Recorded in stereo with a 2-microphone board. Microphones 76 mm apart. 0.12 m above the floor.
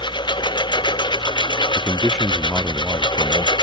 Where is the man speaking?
Centre (ahead or behind).